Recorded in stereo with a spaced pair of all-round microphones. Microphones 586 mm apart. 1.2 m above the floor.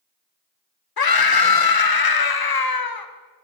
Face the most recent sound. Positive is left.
turn(degrees=40)  # may be behind; listen again after turning